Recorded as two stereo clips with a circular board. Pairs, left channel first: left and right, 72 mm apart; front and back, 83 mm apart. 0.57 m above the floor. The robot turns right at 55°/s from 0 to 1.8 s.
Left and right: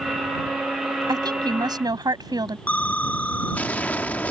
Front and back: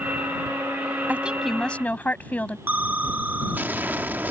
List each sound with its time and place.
1.1 s a woman speaking: 110° right; by 2.6 s 70° right
2.7 s an explosion: 135° left